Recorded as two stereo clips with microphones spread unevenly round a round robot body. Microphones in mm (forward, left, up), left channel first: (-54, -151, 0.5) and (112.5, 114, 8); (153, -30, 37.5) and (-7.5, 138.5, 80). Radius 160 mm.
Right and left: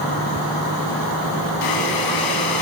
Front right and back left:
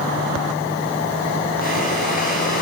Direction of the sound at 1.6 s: 105° right.